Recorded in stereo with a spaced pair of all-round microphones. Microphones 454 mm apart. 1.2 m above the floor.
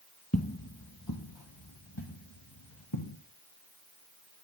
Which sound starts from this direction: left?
Footsteps, at 0.3 s.